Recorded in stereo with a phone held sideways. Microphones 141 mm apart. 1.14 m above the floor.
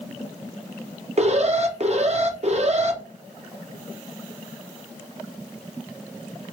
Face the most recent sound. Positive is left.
turn(degrees=-50)  # may be behind; listen again after turning